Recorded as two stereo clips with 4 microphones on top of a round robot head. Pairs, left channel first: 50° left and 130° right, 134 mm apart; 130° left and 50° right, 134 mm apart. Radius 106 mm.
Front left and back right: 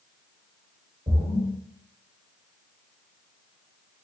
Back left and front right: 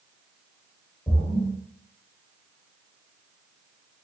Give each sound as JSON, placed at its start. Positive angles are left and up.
{"t": 1.1, "sound": "a splash", "azimuth_deg": -170, "distance_m": 1.2}